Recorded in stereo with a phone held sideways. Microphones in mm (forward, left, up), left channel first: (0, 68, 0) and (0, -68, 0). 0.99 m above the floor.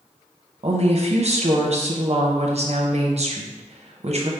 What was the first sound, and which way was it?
A woman speaking, 50° right (ahead or behind).